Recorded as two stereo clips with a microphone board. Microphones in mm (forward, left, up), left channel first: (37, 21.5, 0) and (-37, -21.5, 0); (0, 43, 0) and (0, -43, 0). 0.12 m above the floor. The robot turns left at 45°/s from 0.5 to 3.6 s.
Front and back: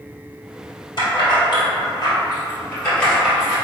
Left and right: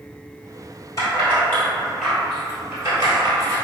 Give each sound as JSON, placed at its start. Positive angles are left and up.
{"t": 1.0, "sound": "keys jangling", "azimuth_deg": 45, "distance_m": 1.7}